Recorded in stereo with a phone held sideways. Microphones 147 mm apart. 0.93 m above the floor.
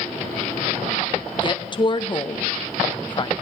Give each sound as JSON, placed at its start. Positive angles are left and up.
{"t": 1.4, "sound": "a woman speaking", "side_deg": 35, "distance_m": 0.7}